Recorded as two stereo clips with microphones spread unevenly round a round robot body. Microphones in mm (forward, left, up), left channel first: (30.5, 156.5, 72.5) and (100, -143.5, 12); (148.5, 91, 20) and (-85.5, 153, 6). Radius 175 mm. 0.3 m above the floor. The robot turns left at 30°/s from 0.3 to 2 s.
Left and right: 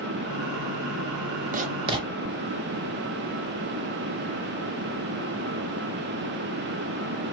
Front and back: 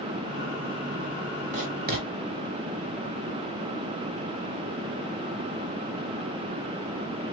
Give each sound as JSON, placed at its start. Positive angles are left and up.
{"t": 1.5, "sound": "writing", "azimuth_deg": -130, "distance_m": 0.5}